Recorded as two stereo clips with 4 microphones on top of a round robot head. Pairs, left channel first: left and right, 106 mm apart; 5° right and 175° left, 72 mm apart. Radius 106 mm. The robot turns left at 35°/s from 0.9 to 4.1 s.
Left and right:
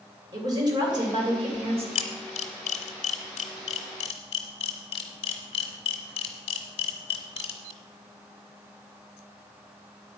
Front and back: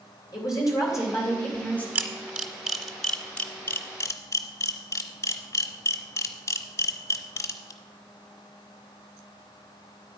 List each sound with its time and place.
0.3 s a woman speaking: 40° right, 3 m; by 1.9 s 75° right, 3 m
1.9 s a camera shutter: 120° left, 0.7 m; by 7.7 s 45° left, 0.7 m